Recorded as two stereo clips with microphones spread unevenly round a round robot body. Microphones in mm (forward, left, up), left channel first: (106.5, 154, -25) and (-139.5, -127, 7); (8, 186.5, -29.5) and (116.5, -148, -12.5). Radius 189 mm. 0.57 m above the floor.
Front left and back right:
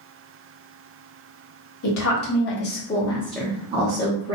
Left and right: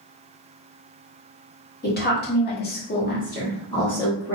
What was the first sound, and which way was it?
A woman speaking, 55° left.